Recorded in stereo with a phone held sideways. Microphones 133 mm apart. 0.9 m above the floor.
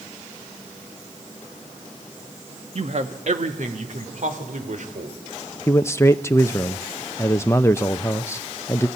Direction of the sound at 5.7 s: 20° left (ahead or behind).